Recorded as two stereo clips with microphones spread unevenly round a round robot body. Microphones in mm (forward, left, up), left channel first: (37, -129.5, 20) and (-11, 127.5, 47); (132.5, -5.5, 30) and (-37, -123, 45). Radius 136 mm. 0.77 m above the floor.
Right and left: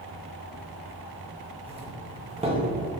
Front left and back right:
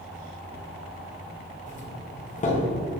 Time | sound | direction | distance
1.7 | a doorbell | 35° left | 1.9 m